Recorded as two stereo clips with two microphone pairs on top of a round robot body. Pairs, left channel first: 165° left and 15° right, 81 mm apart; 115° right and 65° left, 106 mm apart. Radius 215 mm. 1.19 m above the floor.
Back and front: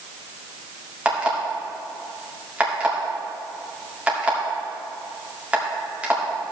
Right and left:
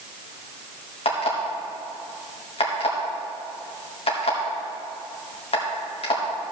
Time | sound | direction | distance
1.1 | an alarm clock | 90° right | 2 m